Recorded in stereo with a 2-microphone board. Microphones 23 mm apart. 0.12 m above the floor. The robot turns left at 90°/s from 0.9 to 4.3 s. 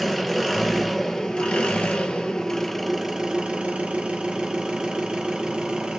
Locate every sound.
0.0 s an engine running: straight behind, 0.8 m; by 6.0 s 125° right, 0.8 m